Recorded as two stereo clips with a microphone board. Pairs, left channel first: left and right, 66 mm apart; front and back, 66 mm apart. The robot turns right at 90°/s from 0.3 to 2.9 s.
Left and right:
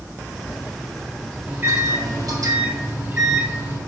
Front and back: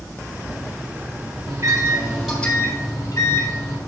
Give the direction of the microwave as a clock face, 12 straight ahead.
5 o'clock.